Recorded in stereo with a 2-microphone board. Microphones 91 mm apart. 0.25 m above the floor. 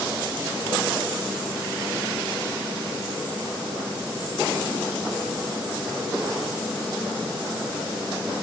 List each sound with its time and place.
Only background noise.